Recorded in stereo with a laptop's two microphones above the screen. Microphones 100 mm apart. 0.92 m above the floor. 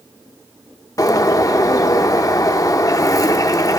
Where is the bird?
35° left (ahead or behind), 0.6 m.